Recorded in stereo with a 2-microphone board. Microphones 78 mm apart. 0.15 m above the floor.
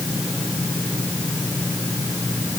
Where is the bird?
No bird in this recording.